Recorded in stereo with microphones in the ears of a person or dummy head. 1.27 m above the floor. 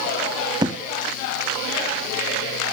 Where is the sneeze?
I don't hear a sneeze.